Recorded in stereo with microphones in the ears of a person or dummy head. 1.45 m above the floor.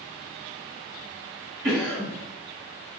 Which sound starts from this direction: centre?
A cough, at 1.6 s.